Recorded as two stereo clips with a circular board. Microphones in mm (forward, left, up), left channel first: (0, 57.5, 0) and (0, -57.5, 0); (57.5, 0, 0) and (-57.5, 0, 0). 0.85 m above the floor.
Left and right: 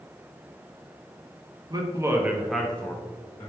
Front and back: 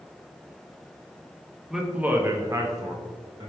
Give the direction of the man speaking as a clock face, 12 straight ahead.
3 o'clock.